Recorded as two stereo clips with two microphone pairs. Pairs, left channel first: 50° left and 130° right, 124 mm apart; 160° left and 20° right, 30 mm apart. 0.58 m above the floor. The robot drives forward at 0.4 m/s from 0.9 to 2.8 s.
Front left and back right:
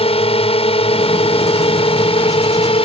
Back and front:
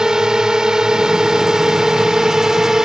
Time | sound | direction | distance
0.0 | a drone | 40° left | ?